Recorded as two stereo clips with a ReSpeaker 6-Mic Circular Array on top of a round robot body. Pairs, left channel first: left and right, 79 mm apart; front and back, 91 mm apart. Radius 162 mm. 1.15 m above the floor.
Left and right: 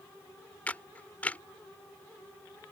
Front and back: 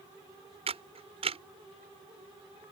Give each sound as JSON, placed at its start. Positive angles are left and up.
{"t": 0.7, "sound": "a camera shutter", "azimuth_deg": 165}